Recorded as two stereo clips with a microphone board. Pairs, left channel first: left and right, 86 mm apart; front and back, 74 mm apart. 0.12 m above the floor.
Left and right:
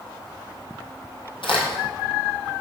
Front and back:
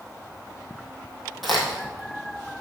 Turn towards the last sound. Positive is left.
turn(degrees=90)